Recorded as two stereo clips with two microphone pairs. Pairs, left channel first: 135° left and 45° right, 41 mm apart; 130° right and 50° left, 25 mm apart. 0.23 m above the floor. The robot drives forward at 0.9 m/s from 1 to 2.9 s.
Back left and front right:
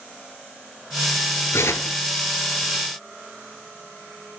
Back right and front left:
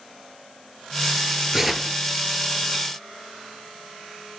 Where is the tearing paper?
125° left, 0.6 m; by 2.0 s 145° left, 0.9 m.